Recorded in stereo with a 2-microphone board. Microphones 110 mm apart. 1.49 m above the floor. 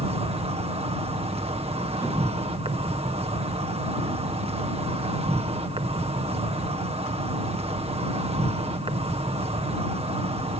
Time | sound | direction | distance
0.0 | an insect | 65° right (ahead or behind) | ?